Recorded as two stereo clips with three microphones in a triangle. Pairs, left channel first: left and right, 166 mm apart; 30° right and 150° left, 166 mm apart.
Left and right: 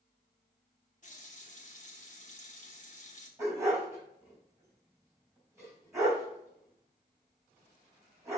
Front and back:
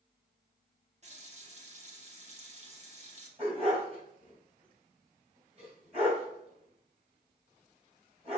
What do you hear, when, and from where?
1.0 s a running tap: 115° left, 1.3 m
3.4 s a dog barking: 160° right, 3 m